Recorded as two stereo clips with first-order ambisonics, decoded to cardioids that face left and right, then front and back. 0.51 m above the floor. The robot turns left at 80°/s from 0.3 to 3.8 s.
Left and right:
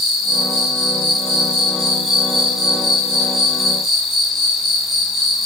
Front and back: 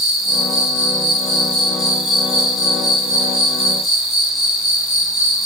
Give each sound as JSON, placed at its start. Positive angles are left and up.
{"t": 0.0, "sound": "an insect", "azimuth_deg": 45, "distance_m": 1.6}